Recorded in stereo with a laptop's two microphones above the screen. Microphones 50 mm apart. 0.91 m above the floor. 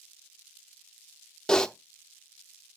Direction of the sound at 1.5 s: 15° left (ahead or behind).